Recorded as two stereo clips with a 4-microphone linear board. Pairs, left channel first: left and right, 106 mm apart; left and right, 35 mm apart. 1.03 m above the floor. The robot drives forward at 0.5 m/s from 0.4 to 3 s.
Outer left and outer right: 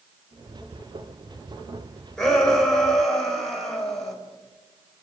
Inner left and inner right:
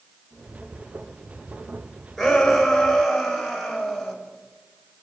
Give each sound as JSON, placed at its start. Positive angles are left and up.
{"t": 2.2, "sound": "a shout", "side_deg": 5, "distance_m": 5.0}